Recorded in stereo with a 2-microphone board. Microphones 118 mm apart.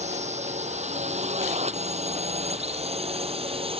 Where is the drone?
75° right (ahead or behind); by 3.8 s 55° right (ahead or behind).